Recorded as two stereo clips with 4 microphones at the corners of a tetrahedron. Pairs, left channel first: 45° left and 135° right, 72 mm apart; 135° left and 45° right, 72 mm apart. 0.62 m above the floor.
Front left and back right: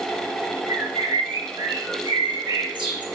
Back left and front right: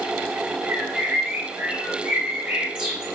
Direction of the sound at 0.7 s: 120° right.